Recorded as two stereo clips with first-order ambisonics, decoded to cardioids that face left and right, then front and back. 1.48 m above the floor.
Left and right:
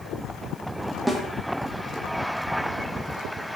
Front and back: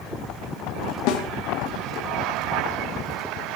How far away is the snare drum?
About 1.2 m.